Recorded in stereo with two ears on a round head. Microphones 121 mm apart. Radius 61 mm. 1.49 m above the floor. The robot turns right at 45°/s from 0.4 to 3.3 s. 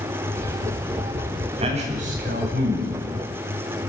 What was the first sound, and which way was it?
A man speaking, 135° right.